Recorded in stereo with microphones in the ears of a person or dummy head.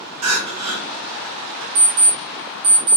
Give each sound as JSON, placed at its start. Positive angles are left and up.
{"t": 0.2, "sound": "crying", "side_deg": -90, "distance_m": 0.7}
{"t": 1.8, "sound": "an alarm clock", "side_deg": -45, "distance_m": 1.4}